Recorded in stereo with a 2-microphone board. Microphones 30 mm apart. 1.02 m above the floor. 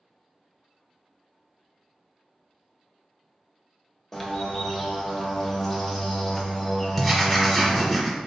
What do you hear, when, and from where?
4.1 s a bird: 15° left (ahead or behind), 0.8 m
7.0 s writing: centre (ahead or behind), 1.1 m